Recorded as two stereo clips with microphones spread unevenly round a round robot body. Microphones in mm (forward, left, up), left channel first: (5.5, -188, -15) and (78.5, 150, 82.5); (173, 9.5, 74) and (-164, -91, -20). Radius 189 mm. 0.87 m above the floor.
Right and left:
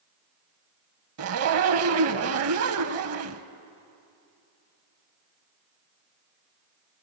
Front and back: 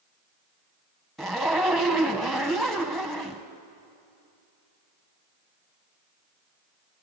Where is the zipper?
95° left, 1.0 m.